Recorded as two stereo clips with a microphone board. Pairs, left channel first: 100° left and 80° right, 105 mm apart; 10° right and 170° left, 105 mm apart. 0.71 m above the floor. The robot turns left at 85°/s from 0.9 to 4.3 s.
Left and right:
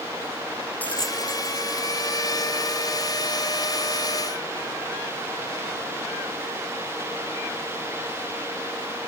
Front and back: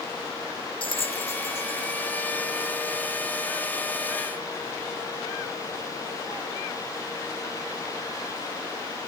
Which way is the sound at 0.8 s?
25° left.